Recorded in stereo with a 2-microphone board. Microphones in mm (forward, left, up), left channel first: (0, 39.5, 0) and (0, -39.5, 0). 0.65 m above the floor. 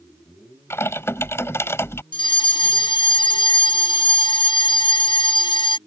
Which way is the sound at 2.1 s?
75° left (ahead or behind).